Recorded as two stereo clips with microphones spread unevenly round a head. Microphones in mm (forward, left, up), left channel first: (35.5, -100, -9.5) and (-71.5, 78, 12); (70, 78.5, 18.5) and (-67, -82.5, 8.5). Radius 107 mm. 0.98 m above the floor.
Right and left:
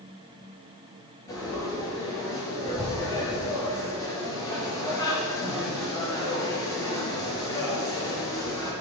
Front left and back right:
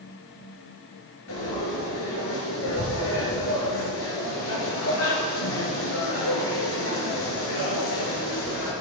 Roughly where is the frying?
Ahead.